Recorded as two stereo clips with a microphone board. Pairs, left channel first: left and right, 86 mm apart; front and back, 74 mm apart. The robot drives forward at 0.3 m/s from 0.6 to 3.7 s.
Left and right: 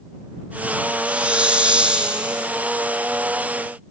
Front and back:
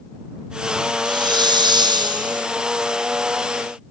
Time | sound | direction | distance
1.1 | a hiss | 165° right | 2.5 m